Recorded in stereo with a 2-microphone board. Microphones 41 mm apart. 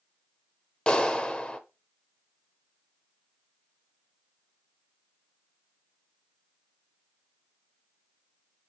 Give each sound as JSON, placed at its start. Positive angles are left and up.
{"t": 0.9, "sound": "a clap", "side_deg": 20, "distance_m": 0.9}